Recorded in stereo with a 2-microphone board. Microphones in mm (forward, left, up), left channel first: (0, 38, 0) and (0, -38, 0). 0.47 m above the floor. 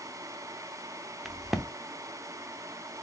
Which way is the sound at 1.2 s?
5° right (ahead or behind).